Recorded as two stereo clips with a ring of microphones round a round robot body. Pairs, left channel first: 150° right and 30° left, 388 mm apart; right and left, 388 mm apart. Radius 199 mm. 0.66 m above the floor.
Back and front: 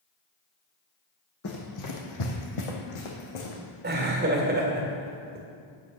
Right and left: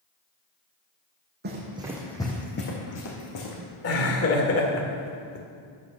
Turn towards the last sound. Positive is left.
turn(degrees=-35)